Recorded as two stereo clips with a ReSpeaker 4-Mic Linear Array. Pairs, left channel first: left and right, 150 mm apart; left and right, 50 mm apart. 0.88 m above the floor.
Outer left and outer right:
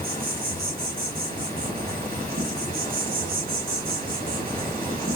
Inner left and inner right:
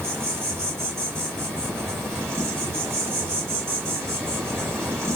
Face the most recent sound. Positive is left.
turn(degrees=-75)  # may be behind; listen again after turning